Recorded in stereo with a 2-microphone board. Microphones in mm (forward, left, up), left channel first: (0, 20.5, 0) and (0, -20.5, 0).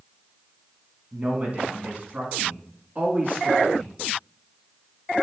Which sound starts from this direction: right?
A man speaking, at 1.1 s.